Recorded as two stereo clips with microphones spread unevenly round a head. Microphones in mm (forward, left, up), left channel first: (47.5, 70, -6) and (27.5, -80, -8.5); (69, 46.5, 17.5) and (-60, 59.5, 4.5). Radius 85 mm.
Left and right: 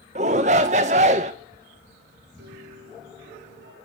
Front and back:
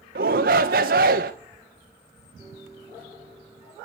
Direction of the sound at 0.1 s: 150° right.